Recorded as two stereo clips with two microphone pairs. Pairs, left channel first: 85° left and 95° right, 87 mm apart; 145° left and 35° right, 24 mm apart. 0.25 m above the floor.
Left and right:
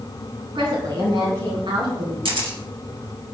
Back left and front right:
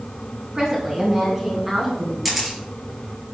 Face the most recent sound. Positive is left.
turn(degrees=-110)